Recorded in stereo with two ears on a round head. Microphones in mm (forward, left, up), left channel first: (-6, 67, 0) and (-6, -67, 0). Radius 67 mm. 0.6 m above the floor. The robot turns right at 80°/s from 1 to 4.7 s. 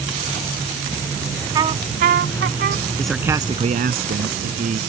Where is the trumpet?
155° right; by 2.8 s 50° right.